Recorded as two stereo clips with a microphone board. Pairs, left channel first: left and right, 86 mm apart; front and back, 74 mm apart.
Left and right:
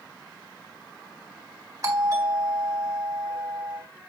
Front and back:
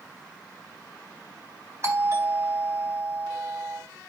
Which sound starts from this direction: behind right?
A doorbell, at 1.8 s.